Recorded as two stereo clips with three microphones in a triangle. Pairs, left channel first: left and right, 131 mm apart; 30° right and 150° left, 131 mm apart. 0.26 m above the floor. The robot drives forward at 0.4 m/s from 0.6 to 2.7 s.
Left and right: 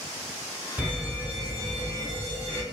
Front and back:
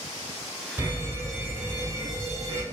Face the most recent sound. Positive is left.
turn(degrees=-160)